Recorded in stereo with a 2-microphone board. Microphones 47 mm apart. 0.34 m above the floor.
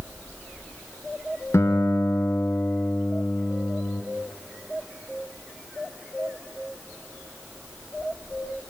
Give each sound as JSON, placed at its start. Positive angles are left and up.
{"t": 1.5, "sound": "a guitar", "side_deg": 70, "distance_m": 1.0}